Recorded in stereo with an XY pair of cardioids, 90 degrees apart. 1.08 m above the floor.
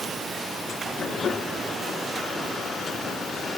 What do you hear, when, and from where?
Only background noise.